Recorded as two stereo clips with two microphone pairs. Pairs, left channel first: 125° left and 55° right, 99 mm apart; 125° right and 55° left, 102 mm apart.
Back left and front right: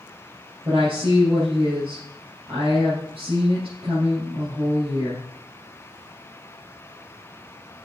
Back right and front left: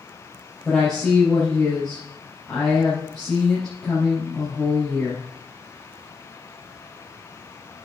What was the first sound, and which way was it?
A woman speaking, 40° right.